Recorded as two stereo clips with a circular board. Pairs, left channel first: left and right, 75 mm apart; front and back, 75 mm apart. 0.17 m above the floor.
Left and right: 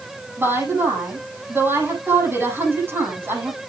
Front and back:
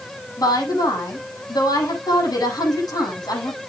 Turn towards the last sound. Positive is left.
turn(degrees=-30)